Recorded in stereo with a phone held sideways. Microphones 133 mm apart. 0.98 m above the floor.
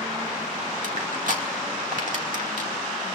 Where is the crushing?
65° right (ahead or behind), 2 m.